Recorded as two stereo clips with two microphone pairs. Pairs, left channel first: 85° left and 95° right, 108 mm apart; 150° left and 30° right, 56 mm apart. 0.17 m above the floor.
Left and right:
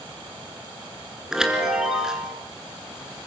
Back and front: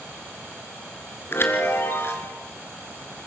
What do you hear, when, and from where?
1.3 s a chime: straight behind, 3 m